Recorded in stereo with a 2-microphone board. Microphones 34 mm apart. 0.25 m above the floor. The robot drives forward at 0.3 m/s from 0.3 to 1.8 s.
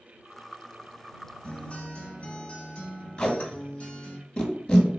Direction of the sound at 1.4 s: 40° left (ahead or behind).